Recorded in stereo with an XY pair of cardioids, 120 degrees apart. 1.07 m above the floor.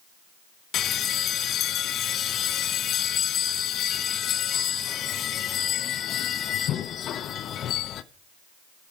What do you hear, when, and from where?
0.7 s a bell: 55° left, 0.7 m